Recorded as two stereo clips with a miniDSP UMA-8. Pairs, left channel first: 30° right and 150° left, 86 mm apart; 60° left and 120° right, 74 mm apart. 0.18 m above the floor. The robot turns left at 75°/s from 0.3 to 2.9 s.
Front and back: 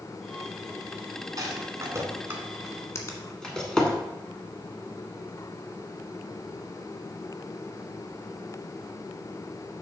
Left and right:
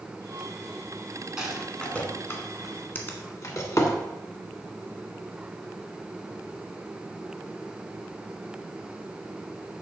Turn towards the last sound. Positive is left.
turn(degrees=5)